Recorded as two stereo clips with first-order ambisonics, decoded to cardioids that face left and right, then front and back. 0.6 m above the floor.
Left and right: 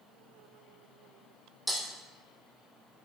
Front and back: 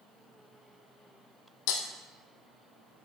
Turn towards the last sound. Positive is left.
turn(degrees=-5)